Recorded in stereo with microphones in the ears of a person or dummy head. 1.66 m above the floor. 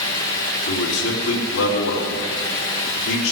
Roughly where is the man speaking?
Left.